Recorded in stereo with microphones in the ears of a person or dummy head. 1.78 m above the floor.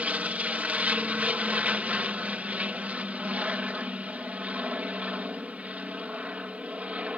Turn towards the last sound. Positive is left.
turn(degrees=-5)  # may be behind; listen again after turning